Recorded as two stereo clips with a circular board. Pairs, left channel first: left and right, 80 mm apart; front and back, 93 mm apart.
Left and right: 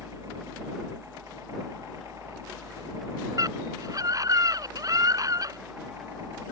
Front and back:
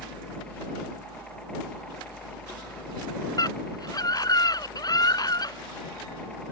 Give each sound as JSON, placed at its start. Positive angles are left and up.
{"t": 0.0, "sound": "a helicopter", "azimuth_deg": -75}
{"t": 3.4, "sound": "a scream", "azimuth_deg": -45}